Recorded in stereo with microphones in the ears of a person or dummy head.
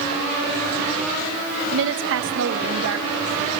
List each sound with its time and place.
1.7 s a woman speaking: 75° right (ahead or behind), 1.6 m; by 3.6 s 70° right (ahead or behind), 2.5 m